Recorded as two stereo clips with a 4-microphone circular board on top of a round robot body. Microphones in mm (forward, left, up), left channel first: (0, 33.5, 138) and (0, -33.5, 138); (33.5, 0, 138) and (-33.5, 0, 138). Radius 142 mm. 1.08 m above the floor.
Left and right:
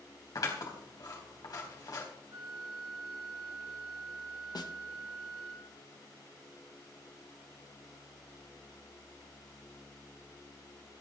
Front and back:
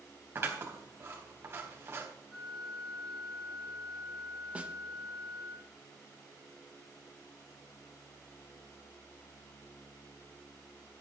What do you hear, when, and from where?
0.3 s scissors: 125° left, 3.5 m
2.3 s a flute: 85° right, 2.5 m
4.5 s a snare drum: 110° left, 1.4 m